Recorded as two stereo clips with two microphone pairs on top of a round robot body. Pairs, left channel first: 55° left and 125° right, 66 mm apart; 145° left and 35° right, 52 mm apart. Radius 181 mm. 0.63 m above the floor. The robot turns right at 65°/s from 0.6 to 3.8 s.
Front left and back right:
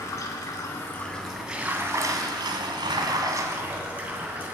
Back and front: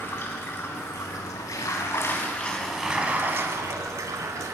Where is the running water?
95° left, 2.5 m; by 4.6 s 55° right, 2.5 m.